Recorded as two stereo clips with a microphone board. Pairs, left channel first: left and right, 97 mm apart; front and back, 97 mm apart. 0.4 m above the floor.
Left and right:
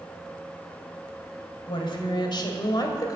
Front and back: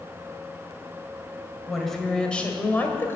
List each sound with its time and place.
1.7 s a woman speaking: 90° left, 2 m; by 3.2 s 55° left, 1.9 m